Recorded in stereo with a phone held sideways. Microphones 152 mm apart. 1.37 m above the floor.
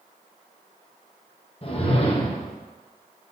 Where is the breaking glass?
No breaking glass in this recording.